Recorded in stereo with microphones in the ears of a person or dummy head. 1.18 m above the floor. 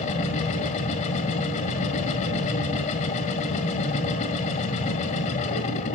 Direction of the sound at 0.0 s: 40° left (ahead or behind).